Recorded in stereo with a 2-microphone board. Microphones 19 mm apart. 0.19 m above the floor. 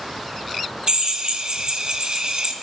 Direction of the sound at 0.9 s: 45° right (ahead or behind).